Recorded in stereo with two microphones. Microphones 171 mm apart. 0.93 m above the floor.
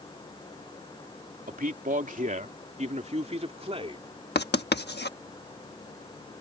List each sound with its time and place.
1.5 s a man speaking: 55° right (ahead or behind); by 4.0 s 30° right (ahead or behind)
4.3 s writing: 75° left (ahead or behind)